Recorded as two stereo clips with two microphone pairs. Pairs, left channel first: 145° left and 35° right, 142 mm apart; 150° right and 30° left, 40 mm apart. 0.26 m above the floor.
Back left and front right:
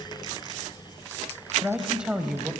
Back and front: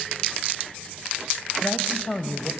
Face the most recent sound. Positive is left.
turn(degrees=-110)